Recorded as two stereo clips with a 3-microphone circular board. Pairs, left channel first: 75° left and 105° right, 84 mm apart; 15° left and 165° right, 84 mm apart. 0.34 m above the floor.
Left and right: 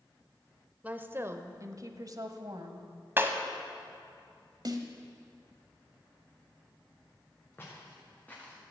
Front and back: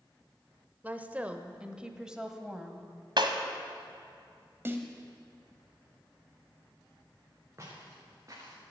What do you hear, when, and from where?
0.8 s a woman speaking: 140° right, 0.8 m; by 2.9 s 80° right, 1.7 m
3.2 s breaking glass: 165° right, 1.3 m
4.7 s a snare drum: 110° right, 1.3 m
7.6 s footsteps: 140° left, 4.5 m; by 8.6 s 150° left, 4 m